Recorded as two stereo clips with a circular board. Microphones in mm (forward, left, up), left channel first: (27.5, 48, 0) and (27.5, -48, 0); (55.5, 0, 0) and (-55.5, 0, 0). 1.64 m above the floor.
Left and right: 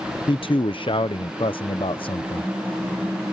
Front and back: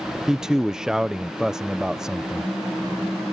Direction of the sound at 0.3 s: 95° left.